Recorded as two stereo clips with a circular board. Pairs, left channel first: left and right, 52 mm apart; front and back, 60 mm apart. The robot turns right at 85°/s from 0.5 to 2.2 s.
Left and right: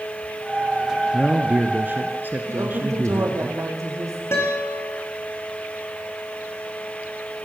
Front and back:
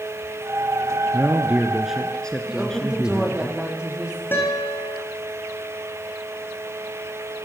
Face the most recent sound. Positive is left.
turn(degrees=50)